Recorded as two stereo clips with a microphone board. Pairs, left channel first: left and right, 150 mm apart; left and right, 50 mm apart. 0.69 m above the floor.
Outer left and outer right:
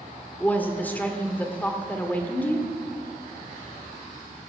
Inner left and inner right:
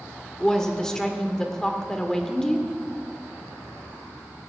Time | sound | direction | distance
0.4 | a woman speaking | 10° left (ahead or behind) | 1.5 m